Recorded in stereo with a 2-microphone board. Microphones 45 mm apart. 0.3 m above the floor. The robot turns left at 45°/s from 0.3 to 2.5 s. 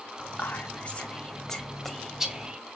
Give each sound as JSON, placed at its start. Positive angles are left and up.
{"t": 0.2, "sound": "whispering", "side_deg": 40, "distance_m": 1.6}